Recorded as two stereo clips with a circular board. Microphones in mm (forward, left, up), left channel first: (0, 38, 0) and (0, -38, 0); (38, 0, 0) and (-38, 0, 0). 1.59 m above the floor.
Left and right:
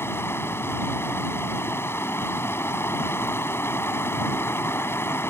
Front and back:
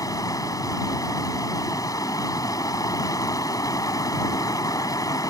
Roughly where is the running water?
Ahead left.